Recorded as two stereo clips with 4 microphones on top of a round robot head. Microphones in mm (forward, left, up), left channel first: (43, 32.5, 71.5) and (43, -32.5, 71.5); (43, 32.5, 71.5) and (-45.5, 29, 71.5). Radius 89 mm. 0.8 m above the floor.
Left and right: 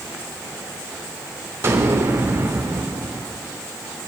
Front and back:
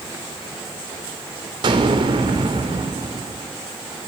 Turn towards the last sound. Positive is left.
turn(degrees=-140)